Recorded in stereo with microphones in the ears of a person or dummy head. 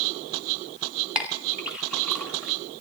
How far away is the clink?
About 2 m.